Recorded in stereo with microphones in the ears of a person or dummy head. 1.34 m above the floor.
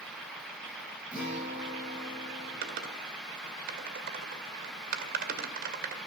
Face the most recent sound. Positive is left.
turn(degrees=-45)  # may be behind; listen again after turning